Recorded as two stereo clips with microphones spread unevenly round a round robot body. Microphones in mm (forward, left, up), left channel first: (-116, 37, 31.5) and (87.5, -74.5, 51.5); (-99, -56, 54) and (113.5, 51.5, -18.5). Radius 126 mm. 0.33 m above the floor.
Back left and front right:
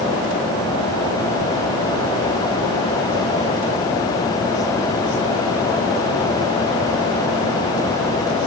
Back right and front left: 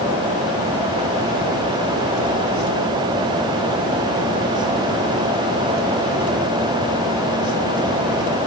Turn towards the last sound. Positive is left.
No sound to turn to.